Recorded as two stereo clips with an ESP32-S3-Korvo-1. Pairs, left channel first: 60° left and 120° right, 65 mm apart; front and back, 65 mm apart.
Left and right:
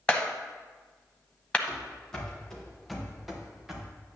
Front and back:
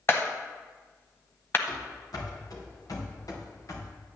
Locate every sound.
0.1 s a clap: straight ahead, 0.9 m
1.7 s running footsteps: 20° right, 3.5 m; by 3.9 s 40° right, 2.5 m